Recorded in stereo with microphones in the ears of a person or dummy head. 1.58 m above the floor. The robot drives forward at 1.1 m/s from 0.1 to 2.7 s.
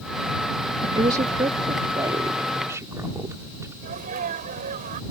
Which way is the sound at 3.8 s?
50° right (ahead or behind).